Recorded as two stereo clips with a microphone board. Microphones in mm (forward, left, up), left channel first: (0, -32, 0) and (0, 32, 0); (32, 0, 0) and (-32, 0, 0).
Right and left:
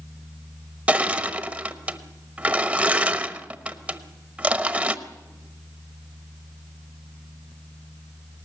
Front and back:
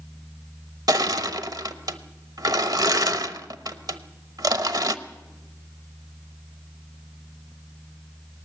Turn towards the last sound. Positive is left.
turn(degrees=160)